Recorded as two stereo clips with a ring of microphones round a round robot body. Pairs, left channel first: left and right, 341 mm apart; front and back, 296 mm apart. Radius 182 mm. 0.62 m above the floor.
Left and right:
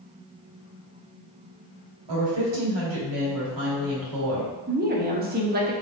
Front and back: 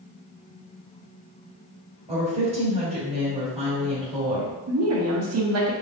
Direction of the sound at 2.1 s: 110° right.